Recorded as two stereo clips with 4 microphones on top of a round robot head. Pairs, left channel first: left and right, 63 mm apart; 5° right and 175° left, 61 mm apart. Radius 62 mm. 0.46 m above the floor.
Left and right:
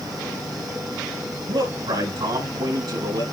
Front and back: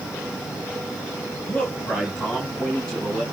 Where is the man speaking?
80° right, 4.5 m; by 3.2 s 90° right, 4.5 m.